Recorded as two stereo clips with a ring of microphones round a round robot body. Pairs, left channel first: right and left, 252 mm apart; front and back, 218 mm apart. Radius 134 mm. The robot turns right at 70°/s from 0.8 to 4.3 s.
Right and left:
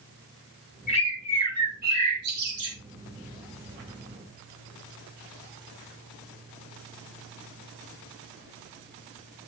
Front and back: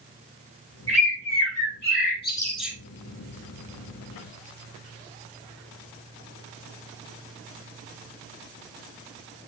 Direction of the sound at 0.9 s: 30° right.